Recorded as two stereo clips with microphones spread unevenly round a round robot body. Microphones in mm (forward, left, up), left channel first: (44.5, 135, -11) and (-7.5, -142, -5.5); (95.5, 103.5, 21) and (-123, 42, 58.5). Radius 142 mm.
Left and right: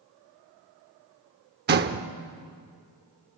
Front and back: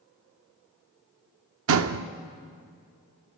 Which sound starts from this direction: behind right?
A door slam, at 1.7 s.